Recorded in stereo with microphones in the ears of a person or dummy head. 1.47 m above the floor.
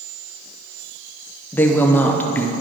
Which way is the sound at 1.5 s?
15° left (ahead or behind).